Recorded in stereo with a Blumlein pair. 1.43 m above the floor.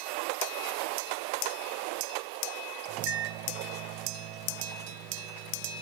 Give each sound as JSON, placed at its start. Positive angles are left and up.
{"t": 2.9, "sound": "a microwave", "azimuth_deg": -40, "distance_m": 1.2}